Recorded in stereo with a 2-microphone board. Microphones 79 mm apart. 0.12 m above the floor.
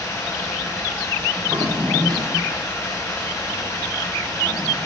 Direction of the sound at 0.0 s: 30° left (ahead or behind).